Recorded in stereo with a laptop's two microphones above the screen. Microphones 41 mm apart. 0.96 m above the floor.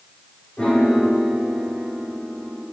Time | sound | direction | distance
0.6 | a piano | 25° left (ahead or behind) | 8.5 m